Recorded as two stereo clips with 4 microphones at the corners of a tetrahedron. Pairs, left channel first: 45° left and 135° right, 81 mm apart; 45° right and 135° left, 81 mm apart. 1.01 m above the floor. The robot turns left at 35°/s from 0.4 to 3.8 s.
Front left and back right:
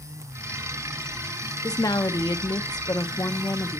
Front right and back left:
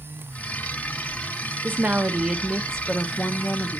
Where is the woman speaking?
75° left, 0.7 m; by 3.8 s straight ahead, 0.7 m.